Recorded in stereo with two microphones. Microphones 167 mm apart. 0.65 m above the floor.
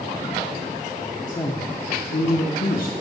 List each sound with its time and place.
1.3 s a woman speaking: 20° left (ahead or behind), 1.0 m; by 2.9 s 65° left (ahead or behind), 1.1 m